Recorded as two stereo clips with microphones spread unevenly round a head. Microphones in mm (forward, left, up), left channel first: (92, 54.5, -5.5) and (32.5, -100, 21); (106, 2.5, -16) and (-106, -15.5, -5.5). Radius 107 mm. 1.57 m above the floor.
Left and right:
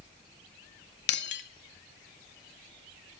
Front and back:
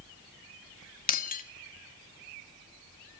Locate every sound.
1.1 s breaking glass: 55° left, 1.7 m